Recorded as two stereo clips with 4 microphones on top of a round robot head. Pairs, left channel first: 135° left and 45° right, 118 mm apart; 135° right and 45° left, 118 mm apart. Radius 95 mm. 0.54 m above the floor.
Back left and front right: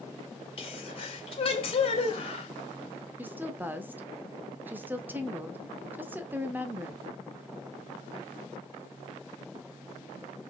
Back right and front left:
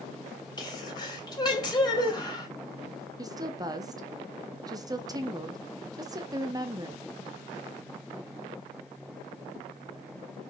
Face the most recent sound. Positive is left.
turn(degrees=20)